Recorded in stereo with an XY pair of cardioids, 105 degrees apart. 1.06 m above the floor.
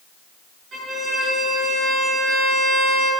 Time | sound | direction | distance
0.7 | a violin | 55° right | 7 m